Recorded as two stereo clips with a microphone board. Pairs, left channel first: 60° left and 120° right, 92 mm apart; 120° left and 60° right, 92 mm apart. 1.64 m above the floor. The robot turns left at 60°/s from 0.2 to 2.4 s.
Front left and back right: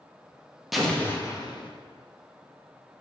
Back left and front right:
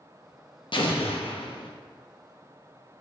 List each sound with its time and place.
0.7 s an explosion: 150° left, 0.6 m; by 1.7 s 95° left, 0.6 m